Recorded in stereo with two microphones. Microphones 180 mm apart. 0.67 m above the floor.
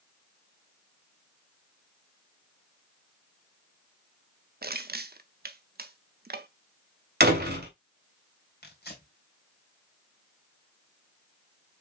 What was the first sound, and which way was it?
Crushing, 65° right (ahead or behind).